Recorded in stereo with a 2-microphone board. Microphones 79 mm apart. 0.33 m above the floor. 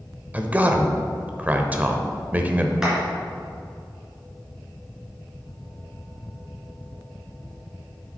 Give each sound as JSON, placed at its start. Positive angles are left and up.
{"t": 0.3, "sound": "a man speaking", "side_deg": -20, "distance_m": 0.9}
{"t": 2.8, "sound": "a clap", "side_deg": -10, "distance_m": 3.5}